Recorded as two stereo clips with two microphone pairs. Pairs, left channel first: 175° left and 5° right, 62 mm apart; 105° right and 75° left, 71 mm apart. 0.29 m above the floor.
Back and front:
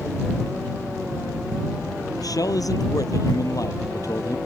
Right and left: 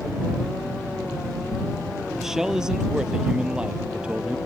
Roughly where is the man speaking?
Behind.